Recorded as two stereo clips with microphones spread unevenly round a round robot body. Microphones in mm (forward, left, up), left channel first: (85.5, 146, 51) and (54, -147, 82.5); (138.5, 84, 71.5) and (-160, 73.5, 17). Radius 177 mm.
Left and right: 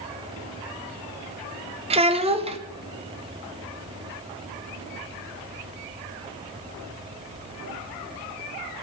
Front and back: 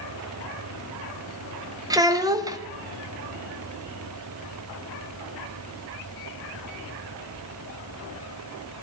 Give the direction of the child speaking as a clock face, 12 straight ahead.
5 o'clock.